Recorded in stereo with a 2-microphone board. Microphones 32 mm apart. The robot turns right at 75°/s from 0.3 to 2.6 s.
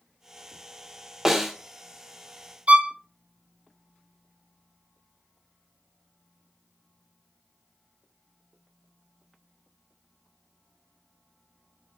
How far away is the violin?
About 0.8 m.